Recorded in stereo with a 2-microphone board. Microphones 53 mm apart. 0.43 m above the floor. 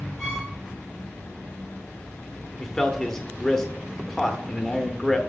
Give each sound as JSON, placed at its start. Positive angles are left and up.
{"t": 0.2, "sound": "a violin", "side_deg": 15, "distance_m": 4.0}
{"t": 2.6, "sound": "a man speaking", "side_deg": 10, "distance_m": 1.0}